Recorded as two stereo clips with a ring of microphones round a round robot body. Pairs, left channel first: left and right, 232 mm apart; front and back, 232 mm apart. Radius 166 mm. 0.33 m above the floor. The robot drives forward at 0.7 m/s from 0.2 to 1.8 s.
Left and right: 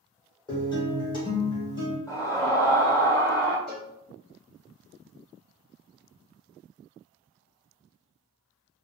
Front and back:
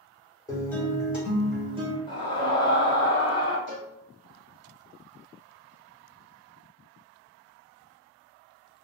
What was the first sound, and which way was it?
A guitar, 50° left.